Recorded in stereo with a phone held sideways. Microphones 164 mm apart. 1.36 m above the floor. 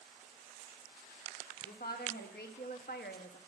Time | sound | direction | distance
1.6 | a woman speaking | 70° left (ahead or behind) | 1.6 m